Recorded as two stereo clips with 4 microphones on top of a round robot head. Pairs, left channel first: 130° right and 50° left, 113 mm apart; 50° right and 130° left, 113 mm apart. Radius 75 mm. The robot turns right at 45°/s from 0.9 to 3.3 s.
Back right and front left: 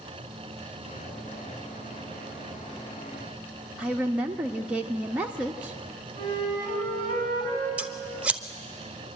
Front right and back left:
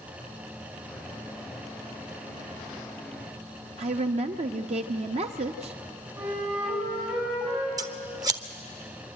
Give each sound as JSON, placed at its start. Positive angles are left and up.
{"t": 3.8, "sound": "a woman speaking", "azimuth_deg": 125, "distance_m": 0.7}
{"t": 6.2, "sound": "a flute", "azimuth_deg": 180, "distance_m": 5.0}
{"t": 7.8, "sound": "scissors", "azimuth_deg": 120, "distance_m": 1.2}